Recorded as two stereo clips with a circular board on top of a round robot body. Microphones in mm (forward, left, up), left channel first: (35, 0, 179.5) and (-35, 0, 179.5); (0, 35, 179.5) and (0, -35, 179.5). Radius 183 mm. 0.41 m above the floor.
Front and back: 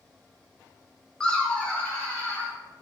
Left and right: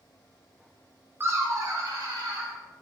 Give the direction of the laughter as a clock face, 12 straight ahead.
2 o'clock.